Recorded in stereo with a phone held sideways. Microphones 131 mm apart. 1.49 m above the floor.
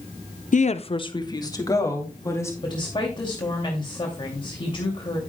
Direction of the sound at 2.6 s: 35° left (ahead or behind).